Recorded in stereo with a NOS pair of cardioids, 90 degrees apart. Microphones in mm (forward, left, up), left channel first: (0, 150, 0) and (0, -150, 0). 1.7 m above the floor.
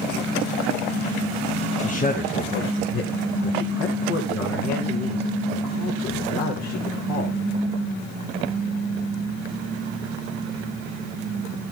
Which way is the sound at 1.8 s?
25° left.